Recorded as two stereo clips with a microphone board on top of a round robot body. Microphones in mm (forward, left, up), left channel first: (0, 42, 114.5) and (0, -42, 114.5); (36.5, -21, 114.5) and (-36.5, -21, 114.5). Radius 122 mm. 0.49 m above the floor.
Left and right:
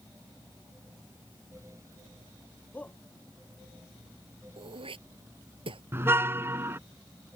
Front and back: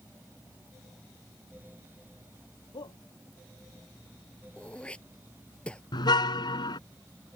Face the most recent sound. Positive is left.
turn(degrees=-25)